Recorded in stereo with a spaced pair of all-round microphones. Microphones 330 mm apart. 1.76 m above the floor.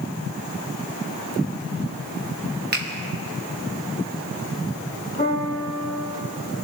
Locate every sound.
2.7 s a finger snap: 30° right (ahead or behind), 1.1 m
5.2 s a piano: 30° left (ahead or behind), 4.5 m